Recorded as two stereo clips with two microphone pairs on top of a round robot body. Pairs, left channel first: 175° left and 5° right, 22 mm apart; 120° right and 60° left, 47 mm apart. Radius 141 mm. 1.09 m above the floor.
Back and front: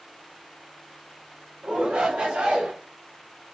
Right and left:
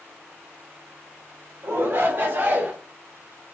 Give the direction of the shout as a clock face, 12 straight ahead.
11 o'clock.